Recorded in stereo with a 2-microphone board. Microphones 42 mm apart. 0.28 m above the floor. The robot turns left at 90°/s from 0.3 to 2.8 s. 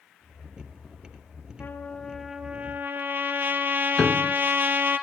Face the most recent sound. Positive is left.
turn(degrees=25)  # may be behind; listen again after turning